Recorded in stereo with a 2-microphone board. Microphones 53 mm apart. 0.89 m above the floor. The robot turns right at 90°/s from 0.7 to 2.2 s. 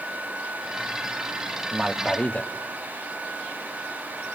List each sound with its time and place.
1.7 s a man speaking: 20° right, 1.3 m; by 2.5 s 25° left, 1.3 m